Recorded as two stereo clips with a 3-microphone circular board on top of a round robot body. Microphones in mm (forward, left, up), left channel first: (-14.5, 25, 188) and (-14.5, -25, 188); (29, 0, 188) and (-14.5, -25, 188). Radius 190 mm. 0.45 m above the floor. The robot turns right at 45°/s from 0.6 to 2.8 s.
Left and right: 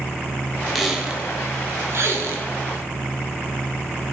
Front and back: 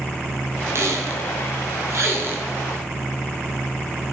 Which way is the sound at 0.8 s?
175° right.